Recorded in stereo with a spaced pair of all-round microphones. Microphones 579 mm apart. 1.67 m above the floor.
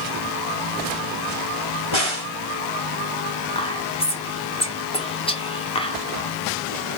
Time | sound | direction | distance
1.9 | a crack | 50° left (ahead or behind) | 2.5 m
3.5 | whispering | 10° left (ahead or behind) | 1.5 m